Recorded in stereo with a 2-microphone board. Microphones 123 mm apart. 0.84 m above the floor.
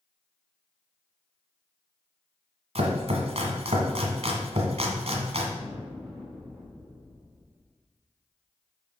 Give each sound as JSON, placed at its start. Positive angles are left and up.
{"t": 2.8, "sound": "chopping", "side_deg": -65, "distance_m": 1.4}
{"t": 5.6, "sound": "an explosion", "side_deg": 0, "distance_m": 3.0}